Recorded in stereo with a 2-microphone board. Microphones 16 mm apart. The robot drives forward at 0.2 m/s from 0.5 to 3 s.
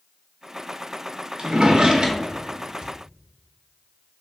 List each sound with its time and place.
1.4 s a drawer: 75° right (ahead or behind), 0.6 m; by 2.9 s 50° right (ahead or behind), 0.7 m